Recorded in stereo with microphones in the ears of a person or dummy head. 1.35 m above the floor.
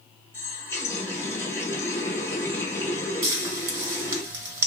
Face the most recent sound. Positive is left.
turn(degrees=-25)  # may be behind; listen again after turning